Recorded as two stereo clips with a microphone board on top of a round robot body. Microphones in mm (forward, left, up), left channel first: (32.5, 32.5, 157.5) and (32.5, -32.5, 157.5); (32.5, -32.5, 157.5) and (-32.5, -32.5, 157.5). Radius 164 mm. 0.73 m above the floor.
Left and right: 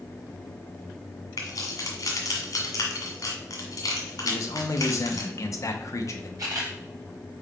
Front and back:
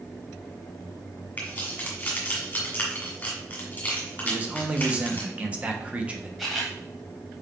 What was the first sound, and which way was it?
Keys jangling, 70° left.